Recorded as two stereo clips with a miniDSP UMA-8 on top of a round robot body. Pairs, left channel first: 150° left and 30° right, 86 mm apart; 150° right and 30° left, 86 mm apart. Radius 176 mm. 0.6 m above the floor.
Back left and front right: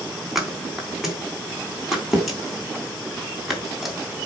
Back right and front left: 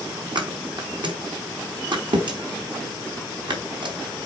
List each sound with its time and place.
0.3 s a thud: 55° left, 4 m